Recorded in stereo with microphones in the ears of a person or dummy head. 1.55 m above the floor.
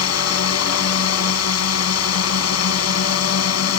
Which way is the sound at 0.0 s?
85° left.